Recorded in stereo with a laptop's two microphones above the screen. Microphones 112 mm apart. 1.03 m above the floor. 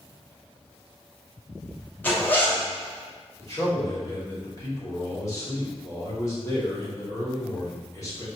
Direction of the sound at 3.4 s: 30° left (ahead or behind).